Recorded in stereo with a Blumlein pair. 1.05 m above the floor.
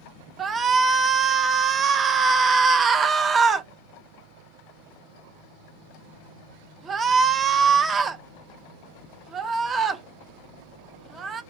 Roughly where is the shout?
Ahead.